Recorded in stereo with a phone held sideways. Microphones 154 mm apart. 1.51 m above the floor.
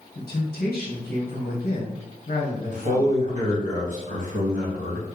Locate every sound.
0.1 s a man speaking: 85° left, 1.1 m
2.7 s a man speaking: 55° right (ahead or behind), 1.7 m